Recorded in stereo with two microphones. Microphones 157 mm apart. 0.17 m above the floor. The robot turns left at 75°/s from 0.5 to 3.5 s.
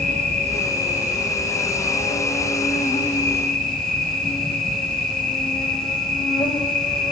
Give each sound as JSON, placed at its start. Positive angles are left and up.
{"t": 0.0, "sound": "an insect", "azimuth_deg": -135, "distance_m": 6.5}